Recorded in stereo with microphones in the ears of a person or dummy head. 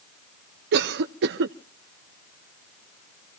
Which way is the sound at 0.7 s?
60° right (ahead or behind).